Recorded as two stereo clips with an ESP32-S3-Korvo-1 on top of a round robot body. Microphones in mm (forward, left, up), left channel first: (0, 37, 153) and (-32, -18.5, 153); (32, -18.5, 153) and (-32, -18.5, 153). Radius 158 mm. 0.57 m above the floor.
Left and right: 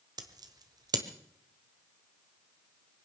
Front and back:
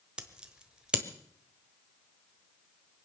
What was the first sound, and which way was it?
Scissors, 100° right.